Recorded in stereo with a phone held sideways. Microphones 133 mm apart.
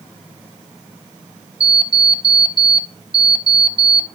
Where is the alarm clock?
45° right (ahead or behind), 0.9 m.